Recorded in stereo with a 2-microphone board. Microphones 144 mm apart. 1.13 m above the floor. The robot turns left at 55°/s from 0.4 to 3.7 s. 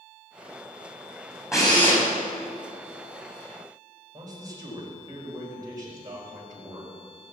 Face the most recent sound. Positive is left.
turn(degrees=-25)  # may be behind; listen again after turning